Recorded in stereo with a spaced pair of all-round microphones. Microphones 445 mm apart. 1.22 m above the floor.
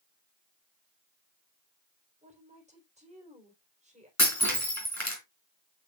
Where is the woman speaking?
15° right (ahead or behind), 4.5 m.